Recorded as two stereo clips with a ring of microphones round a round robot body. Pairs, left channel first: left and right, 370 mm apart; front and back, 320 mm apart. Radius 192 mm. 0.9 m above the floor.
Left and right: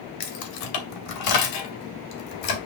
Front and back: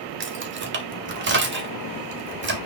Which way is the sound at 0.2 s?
125° left.